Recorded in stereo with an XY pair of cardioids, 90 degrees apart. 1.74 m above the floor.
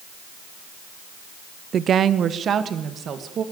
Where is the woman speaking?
60° right, 0.8 m.